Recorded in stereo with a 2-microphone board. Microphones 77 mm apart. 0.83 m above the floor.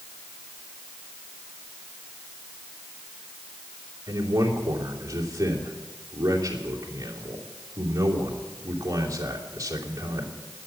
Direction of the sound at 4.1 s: 45° right (ahead or behind).